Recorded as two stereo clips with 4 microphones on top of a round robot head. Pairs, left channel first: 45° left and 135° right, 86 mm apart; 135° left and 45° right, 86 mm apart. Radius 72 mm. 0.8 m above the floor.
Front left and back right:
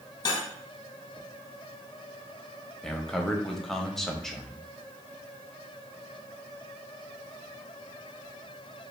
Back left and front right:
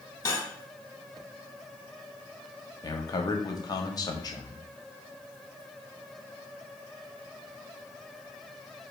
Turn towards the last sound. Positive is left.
turn(degrees=130)